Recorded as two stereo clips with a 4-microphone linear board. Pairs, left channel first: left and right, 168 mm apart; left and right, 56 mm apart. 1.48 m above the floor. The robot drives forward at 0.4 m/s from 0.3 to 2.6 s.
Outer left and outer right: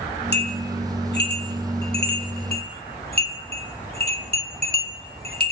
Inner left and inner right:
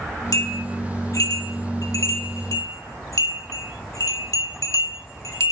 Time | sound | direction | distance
0.3 | a bell | 80° left | 1.8 m